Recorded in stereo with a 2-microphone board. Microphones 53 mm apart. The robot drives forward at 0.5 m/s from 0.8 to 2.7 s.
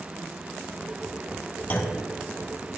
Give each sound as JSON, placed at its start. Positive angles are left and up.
{"t": 1.7, "sound": "a clunk", "side_deg": 35, "distance_m": 1.3}